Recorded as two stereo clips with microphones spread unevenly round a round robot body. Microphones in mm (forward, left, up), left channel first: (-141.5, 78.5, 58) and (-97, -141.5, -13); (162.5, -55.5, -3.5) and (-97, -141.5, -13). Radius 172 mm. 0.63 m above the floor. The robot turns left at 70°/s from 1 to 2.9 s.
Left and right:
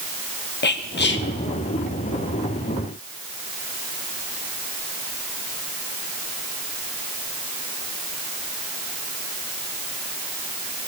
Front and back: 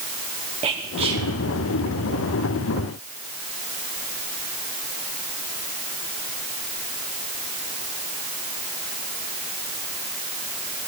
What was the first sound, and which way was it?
Whispering, 145° left.